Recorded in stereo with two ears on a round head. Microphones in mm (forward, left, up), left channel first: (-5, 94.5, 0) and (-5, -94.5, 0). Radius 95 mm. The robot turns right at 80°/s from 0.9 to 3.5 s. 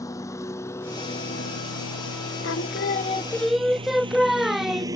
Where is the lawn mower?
15° left (ahead or behind); by 5.0 s 15° right (ahead or behind).